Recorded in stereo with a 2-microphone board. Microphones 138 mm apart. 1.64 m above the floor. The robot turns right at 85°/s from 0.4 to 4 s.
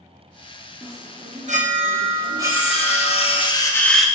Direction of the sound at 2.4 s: 45° left.